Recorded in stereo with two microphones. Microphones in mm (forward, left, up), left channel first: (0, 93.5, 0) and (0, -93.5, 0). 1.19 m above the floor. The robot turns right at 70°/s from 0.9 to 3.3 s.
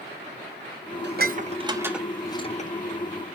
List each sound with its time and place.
1.0 s dishes clattering: 65° right (ahead or behind), 0.8 m; by 2.7 s 45° left (ahead or behind), 0.8 m